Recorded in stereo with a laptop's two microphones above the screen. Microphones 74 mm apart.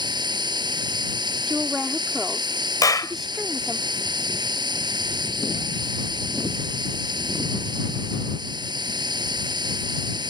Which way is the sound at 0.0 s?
75° right (ahead or behind).